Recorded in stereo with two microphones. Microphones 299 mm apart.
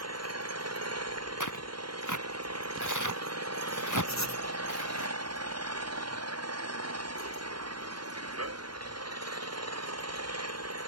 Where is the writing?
65° left (ahead or behind).